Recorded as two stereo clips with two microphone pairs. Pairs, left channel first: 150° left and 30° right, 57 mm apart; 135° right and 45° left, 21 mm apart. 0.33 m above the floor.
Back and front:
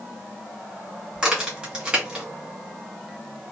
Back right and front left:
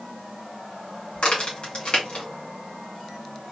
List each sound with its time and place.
1.1 s a crack: 105° right, 2 m